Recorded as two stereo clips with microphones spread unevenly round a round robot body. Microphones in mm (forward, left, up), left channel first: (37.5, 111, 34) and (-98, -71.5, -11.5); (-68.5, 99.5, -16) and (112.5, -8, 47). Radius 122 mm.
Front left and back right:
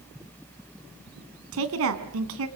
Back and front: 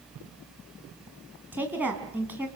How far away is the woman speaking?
About 2.5 m.